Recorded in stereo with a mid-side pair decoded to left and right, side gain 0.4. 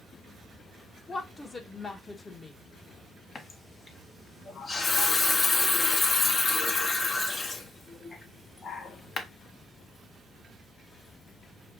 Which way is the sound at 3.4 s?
45° left.